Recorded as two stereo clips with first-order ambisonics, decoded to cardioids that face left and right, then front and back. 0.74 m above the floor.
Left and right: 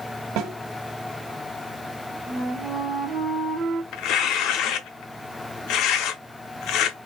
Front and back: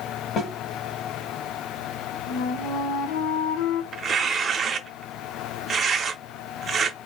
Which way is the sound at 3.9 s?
115° left.